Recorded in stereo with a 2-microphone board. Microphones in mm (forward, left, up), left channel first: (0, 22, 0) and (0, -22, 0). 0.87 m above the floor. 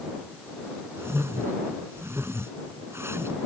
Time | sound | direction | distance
1.0 | a whoosh | 85° right | ?